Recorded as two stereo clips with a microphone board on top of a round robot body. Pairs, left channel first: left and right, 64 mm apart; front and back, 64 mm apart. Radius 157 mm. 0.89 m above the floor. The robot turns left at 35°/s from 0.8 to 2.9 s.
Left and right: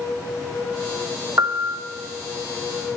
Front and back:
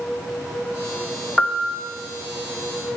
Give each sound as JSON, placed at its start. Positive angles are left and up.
{"t": 1.4, "sound": "a piano", "azimuth_deg": -80, "distance_m": 1.0}